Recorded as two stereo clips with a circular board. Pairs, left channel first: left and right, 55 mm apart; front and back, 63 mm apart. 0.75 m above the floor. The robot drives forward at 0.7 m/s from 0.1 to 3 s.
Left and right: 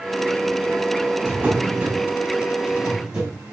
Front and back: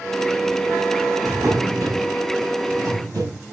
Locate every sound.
1.2 s a drawer: 150° right, 3 m; by 3.4 s 160° right, 4.5 m